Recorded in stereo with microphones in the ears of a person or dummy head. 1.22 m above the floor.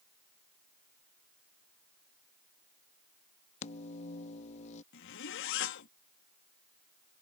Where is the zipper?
60° left (ahead or behind).